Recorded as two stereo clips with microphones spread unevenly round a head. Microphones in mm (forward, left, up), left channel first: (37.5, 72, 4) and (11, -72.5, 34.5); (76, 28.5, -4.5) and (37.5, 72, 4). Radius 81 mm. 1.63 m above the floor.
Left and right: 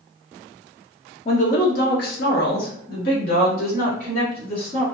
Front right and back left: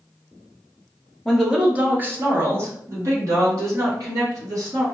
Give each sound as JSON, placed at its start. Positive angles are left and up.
{"t": 1.2, "sound": "a woman speaking", "azimuth_deg": 50, "distance_m": 0.6}